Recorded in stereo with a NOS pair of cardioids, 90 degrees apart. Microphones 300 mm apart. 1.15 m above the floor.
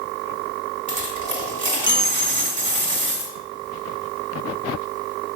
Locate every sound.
0.9 s a dropped coin: 25° right, 2 m